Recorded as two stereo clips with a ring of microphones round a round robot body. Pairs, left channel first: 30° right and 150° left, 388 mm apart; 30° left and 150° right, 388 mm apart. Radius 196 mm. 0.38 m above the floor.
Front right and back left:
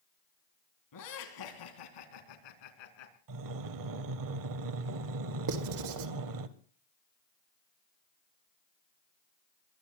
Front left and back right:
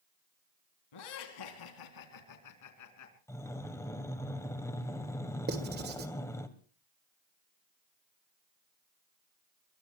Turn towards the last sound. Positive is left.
turn(degrees=155)